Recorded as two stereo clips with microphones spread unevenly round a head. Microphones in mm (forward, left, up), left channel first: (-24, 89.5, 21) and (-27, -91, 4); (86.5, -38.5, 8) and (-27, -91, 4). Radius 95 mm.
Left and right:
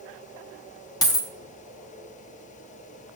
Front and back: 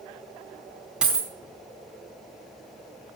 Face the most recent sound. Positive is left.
turn(degrees=125)